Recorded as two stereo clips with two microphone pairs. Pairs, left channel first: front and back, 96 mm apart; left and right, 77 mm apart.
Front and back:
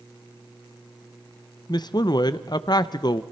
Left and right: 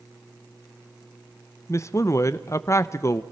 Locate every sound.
1.7 s a man speaking: 40° left, 0.7 m